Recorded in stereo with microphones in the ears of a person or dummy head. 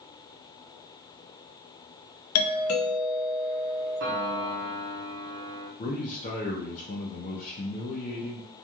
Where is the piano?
60° right (ahead or behind), 0.8 m.